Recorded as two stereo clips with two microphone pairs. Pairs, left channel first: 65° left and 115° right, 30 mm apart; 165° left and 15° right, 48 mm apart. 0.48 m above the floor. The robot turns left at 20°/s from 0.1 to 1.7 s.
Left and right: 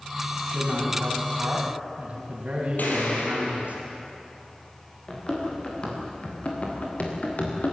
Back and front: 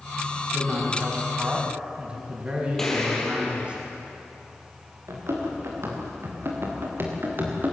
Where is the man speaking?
50° right, 4.5 m; by 3.8 s 75° right, 4.5 m.